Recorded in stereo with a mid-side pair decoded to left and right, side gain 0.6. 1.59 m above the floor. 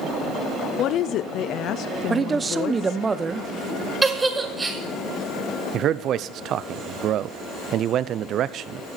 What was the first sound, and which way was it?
A woman speaking, 60° left.